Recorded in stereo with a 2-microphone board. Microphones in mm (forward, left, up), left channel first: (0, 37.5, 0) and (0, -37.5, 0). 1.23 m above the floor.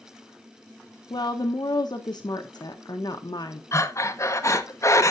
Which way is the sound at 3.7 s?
40° left (ahead or behind).